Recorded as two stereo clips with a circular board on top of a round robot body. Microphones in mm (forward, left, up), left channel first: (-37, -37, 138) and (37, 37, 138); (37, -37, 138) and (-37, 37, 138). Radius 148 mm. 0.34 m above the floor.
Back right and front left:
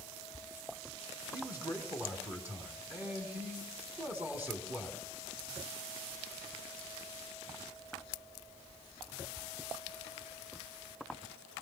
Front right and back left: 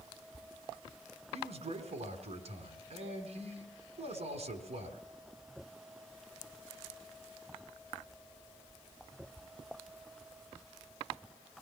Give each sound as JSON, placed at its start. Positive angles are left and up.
{"t": 1.3, "sound": "a man speaking", "azimuth_deg": 115, "distance_m": 4.0}